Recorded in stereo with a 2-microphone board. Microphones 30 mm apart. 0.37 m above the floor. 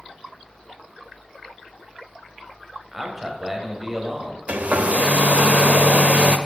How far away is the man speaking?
About 2.0 m.